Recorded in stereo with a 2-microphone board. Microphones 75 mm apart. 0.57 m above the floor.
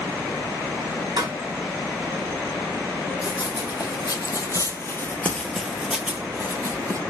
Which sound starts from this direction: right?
A pop, at 1.2 s.